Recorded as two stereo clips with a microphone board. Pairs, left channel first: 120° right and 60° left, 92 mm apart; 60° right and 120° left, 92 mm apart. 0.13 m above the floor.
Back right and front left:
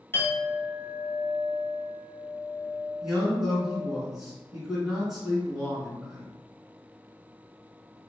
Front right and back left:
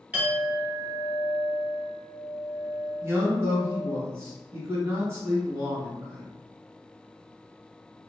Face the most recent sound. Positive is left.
turn(degrees=140)